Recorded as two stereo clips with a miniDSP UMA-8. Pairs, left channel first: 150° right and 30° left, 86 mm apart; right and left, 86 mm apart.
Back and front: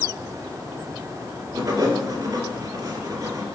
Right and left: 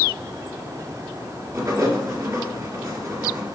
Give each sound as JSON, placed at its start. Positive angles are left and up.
{"t": 1.5, "sound": "writing", "azimuth_deg": 60, "distance_m": 2.0}